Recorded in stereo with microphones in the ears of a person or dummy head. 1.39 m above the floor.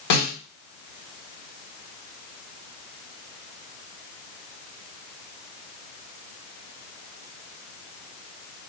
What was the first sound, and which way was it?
A snare drum, 60° left (ahead or behind).